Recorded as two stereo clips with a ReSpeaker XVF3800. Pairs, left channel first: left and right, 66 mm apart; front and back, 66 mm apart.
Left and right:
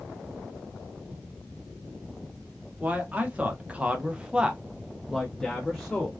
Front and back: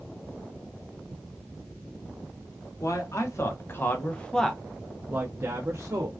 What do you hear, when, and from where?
2.8 s a man speaking: 25° right, 1.1 m; by 6.1 s 170° left, 0.9 m